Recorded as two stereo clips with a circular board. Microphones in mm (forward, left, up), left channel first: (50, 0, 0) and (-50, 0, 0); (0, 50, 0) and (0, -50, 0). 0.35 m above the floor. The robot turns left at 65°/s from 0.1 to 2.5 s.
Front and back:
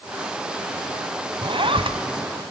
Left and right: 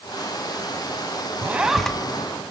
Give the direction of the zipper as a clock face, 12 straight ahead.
5 o'clock.